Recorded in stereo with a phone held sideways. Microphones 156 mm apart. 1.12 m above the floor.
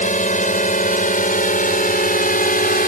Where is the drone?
55° left (ahead or behind); by 2.9 s 65° left (ahead or behind).